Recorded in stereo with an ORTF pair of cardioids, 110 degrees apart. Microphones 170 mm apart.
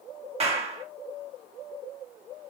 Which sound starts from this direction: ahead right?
A clap, at 0.4 s.